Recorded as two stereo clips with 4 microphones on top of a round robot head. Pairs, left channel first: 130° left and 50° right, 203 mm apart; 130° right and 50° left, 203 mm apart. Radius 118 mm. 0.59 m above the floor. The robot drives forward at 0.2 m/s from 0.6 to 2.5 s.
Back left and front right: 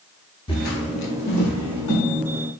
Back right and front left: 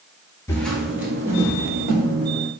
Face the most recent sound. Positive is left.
turn(degrees=130)